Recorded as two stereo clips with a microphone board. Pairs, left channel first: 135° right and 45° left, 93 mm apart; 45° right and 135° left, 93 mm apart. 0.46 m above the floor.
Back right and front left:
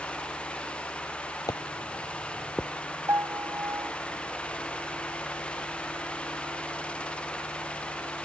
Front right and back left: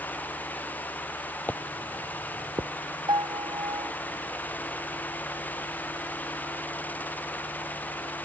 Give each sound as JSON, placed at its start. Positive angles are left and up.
{"t": 1.5, "sound": "footsteps", "azimuth_deg": -110}
{"t": 3.1, "sound": "a piano", "azimuth_deg": 100}